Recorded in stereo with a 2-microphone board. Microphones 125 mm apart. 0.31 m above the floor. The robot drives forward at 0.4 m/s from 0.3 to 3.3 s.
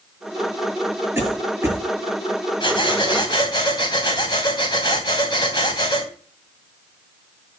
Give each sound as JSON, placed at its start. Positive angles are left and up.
{"t": 1.1, "sound": "a cough", "side_deg": -20, "distance_m": 8.0}
{"t": 2.6, "sound": "breathing", "side_deg": 40, "distance_m": 2.5}